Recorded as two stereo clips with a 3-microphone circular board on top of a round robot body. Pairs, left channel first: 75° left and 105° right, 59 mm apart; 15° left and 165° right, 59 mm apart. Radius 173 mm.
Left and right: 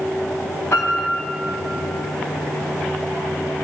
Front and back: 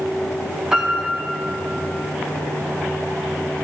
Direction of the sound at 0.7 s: 115° left.